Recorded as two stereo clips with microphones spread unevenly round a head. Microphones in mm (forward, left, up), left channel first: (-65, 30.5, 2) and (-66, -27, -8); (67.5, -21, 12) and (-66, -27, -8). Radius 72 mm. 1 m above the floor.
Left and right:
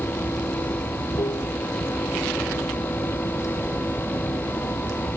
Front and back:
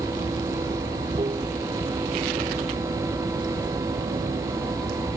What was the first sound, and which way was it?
Running water, 120° left.